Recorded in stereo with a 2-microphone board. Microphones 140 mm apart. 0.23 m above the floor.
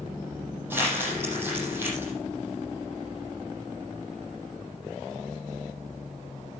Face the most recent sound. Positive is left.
turn(degrees=-15)  # may be behind; listen again after turning